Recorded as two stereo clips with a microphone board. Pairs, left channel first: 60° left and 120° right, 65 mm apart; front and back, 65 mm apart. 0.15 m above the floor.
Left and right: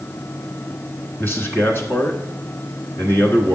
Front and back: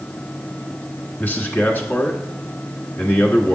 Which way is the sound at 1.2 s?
40° left.